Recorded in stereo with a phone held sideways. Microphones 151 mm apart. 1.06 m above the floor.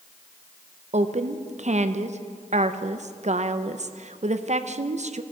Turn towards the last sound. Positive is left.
turn(degrees=-55)  # may be behind; listen again after turning